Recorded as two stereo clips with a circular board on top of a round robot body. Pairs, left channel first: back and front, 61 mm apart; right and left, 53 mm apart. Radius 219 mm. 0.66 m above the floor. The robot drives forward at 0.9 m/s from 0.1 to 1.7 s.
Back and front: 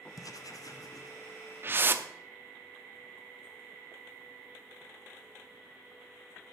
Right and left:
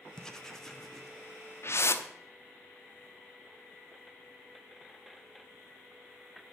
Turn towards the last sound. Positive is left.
turn(degrees=-55)